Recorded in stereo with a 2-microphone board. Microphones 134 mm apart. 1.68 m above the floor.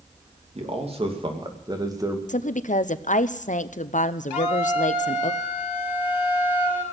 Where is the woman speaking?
70° left (ahead or behind), 0.7 m.